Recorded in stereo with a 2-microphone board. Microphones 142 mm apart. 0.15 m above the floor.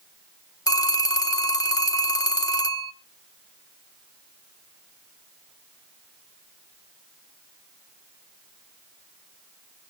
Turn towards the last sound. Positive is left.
turn(degrees=25)  # may be behind; listen again after turning